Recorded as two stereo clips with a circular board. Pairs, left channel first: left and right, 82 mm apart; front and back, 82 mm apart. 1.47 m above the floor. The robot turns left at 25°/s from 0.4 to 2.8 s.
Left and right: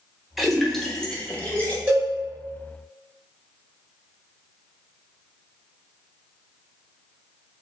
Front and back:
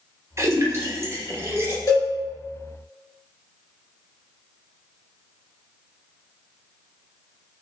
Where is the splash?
Straight behind, 0.6 m; by 1.8 s 145° left, 0.6 m.